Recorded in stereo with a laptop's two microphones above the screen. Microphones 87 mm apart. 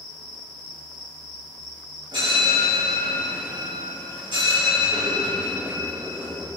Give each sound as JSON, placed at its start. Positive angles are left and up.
{"t": 2.1, "sound": "a bell", "side_deg": -75, "distance_m": 4.0}